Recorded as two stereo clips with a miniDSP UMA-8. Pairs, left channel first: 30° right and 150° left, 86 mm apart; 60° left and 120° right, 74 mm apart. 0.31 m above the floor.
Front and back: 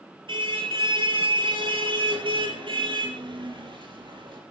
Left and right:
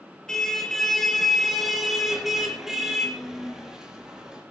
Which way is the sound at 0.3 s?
140° left.